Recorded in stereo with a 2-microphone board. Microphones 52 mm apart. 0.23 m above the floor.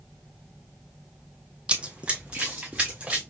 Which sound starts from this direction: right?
Running footsteps, at 1.7 s.